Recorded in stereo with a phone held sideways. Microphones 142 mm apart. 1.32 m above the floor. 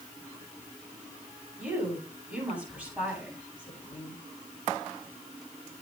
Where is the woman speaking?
10° right (ahead or behind), 10 m.